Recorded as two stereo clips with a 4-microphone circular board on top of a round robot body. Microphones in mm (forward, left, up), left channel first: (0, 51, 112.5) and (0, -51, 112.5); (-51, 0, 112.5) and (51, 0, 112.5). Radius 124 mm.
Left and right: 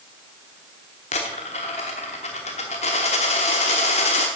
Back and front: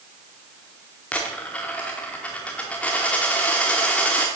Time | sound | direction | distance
1.1 | a dropped coin | 105° left | 0.8 m